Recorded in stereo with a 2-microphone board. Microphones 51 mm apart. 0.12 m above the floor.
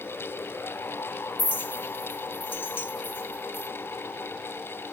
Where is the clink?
40° left (ahead or behind), 1.4 m.